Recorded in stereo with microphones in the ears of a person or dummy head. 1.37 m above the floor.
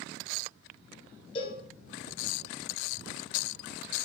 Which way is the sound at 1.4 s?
35° left (ahead or behind).